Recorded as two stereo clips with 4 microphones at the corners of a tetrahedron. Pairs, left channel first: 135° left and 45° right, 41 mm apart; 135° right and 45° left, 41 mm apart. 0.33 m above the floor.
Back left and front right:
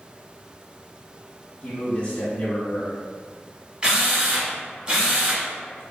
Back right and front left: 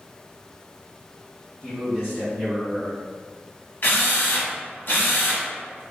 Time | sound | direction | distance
1.6 | a man speaking | 105° left | 1.4 m
3.8 | a drill | 110° right | 1.0 m